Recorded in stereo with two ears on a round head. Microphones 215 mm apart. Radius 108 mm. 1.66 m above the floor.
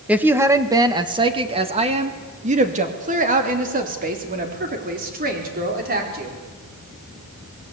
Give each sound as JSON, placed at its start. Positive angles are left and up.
{"t": 0.1, "sound": "a woman speaking", "side_deg": -5, "distance_m": 1.4}